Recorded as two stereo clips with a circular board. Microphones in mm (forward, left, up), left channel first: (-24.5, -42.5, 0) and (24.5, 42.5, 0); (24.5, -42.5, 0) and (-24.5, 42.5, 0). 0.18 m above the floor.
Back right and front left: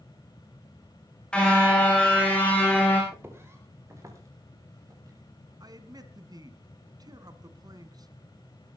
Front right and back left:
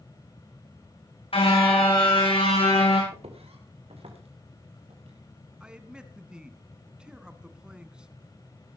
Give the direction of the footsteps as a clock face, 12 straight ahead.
8 o'clock.